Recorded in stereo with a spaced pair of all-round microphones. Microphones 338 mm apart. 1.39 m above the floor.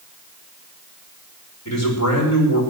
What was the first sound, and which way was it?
A man speaking, 50° left (ahead or behind).